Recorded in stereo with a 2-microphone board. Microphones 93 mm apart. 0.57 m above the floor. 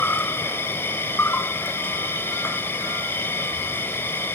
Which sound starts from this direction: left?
An insect, at 0.0 s.